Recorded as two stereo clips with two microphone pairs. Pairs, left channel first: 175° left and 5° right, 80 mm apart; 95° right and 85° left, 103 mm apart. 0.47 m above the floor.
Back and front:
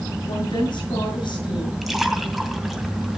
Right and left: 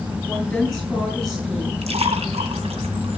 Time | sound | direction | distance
0.3 | a woman speaking | straight behind | 8 m
1.8 | a splash | 85° left | 2 m